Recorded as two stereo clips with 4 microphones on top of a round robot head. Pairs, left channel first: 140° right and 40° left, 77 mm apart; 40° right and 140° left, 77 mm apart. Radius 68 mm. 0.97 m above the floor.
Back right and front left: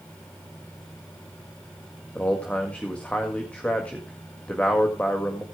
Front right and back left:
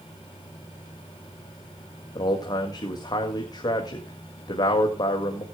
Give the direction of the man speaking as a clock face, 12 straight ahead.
2 o'clock.